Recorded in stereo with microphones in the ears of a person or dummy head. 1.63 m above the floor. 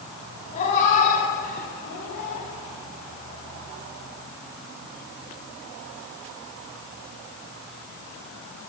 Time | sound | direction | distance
0.5 | a cat meowing | 45° left (ahead or behind) | 4 m